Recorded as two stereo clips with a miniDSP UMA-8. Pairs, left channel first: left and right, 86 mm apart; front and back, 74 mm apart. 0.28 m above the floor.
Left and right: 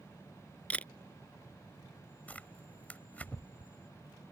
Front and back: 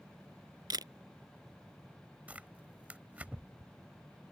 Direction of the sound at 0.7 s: 165° left.